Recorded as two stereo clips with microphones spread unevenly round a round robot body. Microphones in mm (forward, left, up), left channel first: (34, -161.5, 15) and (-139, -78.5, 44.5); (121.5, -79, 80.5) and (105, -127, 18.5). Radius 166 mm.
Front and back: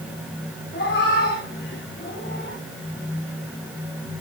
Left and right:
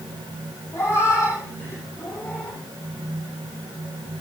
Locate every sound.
0.7 s a cat meowing: 40° left, 9 m; by 2.6 s 35° left, 7.5 m